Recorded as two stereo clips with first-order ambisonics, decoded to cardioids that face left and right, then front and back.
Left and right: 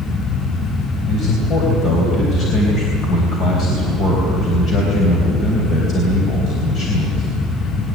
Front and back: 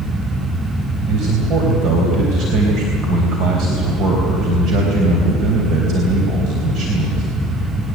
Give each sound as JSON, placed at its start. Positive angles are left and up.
{"t": 1.1, "sound": "a man speaking", "azimuth_deg": 140, "distance_m": 3.5}